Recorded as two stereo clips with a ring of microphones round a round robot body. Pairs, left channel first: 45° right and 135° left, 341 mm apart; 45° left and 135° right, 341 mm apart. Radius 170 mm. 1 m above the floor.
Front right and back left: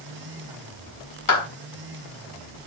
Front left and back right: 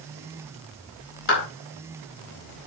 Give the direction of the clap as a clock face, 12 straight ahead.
12 o'clock.